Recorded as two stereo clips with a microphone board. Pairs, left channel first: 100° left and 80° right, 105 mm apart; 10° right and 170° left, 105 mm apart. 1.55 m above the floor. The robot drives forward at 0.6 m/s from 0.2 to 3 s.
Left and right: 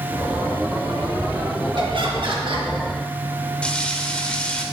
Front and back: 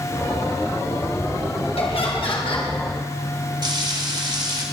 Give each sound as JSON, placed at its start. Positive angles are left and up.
{"t": 1.8, "sound": "laughter", "azimuth_deg": -40, "distance_m": 2.5}
{"t": 3.6, "sound": "frying", "azimuth_deg": 175, "distance_m": 1.5}